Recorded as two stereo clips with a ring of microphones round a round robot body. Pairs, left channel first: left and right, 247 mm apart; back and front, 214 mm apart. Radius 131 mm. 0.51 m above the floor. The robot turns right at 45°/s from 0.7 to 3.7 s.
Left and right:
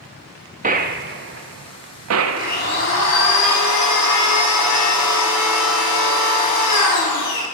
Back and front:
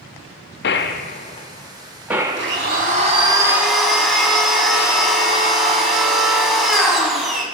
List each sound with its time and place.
0.6 s a gunshot: 145° right, 1.0 m; by 2.9 s 45° right, 1.0 m
2.4 s a blender: 30° left, 4.5 m; by 7.4 s 90° left, 4.5 m